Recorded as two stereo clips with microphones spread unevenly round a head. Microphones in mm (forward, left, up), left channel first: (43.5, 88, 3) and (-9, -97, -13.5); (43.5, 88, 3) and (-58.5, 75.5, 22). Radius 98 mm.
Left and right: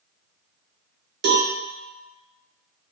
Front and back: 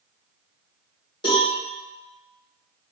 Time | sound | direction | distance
1.2 | a cowbell | 60° right | 0.6 m